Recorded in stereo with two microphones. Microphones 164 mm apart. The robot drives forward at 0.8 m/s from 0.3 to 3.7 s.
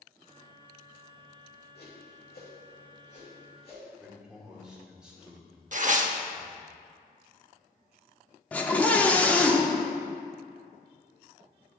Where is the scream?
10° left (ahead or behind), 0.7 m.